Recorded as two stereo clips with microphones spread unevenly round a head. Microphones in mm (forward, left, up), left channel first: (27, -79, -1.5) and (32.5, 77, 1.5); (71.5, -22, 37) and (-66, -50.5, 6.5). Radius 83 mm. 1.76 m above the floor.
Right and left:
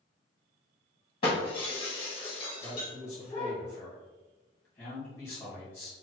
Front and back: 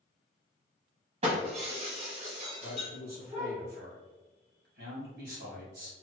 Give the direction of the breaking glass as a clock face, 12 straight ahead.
4 o'clock.